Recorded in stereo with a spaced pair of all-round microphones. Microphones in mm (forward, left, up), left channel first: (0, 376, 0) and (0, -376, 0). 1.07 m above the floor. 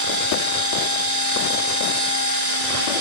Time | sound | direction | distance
0.0 | a machine running | 50° right (ahead or behind) | 6 m